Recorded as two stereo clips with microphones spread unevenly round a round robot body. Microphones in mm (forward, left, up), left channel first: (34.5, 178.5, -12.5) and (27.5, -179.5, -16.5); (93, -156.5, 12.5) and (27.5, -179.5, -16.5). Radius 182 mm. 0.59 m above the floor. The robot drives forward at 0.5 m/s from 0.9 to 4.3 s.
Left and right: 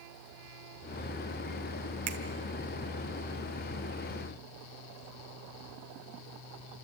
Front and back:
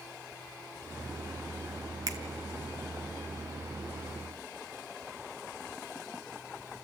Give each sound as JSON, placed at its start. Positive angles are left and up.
{"t": 2.1, "sound": "a finger snap", "azimuth_deg": -145, "distance_m": 1.7}